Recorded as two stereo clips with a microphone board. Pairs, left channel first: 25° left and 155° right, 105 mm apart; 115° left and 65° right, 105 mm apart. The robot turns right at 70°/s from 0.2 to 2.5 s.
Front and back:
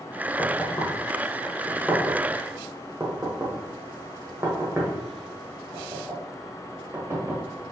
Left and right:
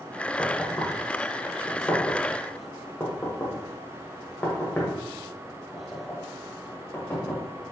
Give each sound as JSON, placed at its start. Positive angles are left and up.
{"t": 0.4, "sound": "knocking", "azimuth_deg": 20, "distance_m": 1.1}